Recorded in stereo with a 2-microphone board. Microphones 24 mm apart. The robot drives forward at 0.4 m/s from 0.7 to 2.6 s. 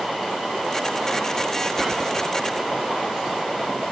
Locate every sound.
1.8 s whispering: 15° right (ahead or behind), 1.1 m